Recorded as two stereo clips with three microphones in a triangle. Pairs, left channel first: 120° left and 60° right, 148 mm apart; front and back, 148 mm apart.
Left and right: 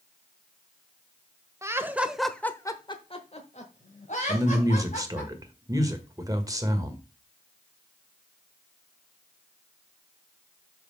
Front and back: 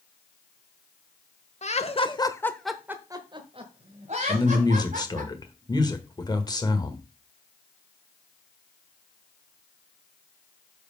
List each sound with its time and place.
1.6 s laughter: 5° left, 1.2 m; by 5.3 s 155° left, 2.5 m
4.3 s a man speaking: 25° right, 1.3 m